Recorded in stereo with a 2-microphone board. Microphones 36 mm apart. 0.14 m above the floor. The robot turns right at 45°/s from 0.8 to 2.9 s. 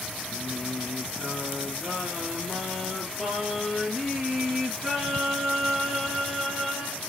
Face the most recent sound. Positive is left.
turn(degrees=0)